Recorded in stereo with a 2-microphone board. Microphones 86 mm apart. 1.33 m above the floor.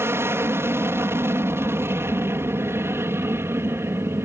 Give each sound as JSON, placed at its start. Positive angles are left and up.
{"t": 0.0, "sound": "an aircraft", "side_deg": -30}